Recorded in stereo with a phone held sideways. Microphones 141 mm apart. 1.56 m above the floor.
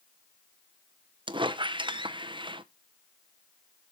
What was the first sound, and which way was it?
A squeak, 35° right (ahead or behind).